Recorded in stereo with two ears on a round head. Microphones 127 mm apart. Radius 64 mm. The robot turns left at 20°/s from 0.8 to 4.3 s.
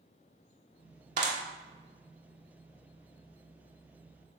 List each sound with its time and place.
1.2 s a clap: 55° right (ahead or behind), 1.8 m; by 1.4 s 60° right (ahead or behind), 1.8 m